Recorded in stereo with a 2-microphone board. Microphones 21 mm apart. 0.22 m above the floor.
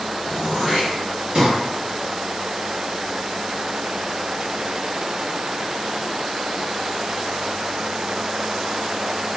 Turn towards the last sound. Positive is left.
turn(degrees=-40)  # may be behind; listen again after turning